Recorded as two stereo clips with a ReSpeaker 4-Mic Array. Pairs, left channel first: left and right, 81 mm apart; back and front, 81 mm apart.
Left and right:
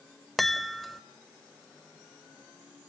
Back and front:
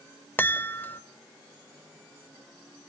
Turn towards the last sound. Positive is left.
turn(degrees=180)